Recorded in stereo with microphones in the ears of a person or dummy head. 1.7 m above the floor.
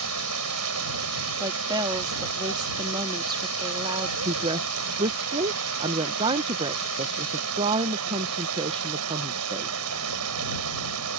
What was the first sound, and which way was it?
Running water, 85° right.